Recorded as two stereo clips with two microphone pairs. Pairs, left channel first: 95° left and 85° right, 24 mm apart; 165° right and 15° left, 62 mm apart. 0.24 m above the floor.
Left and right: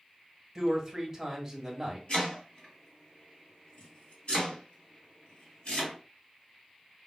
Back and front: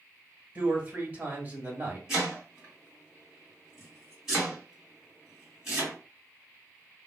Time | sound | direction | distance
0.6 | a man speaking | 10° right | 1.2 m
2.1 | chopping | 100° left | 2 m